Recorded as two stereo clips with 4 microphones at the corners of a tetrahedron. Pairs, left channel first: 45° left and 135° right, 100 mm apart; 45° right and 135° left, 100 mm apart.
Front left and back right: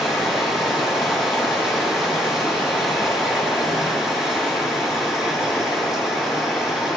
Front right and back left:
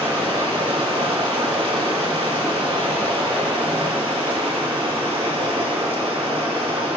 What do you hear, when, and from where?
0.0 s running water: 140° left, 3 m